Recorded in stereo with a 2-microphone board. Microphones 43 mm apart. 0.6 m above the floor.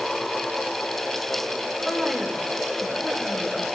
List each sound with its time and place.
1.9 s a woman speaking: 5° right (ahead or behind), 2 m